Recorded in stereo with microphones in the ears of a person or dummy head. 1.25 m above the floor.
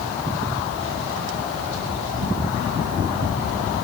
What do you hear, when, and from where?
Only background noise.